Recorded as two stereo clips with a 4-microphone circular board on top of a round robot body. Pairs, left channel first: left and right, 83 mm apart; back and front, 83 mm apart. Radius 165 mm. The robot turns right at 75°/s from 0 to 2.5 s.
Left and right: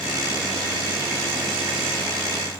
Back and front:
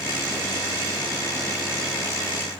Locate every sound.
Only background noise.